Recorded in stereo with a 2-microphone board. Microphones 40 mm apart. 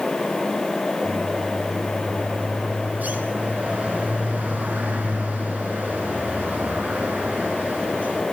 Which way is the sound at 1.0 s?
45° right (ahead or behind).